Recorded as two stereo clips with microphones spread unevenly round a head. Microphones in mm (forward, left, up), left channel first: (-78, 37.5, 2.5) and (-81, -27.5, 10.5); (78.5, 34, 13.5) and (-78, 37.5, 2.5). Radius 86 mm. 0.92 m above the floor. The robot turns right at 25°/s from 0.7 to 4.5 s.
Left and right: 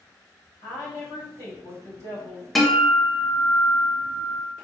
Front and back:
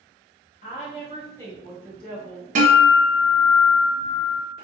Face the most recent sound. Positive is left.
turn(degrees=-140)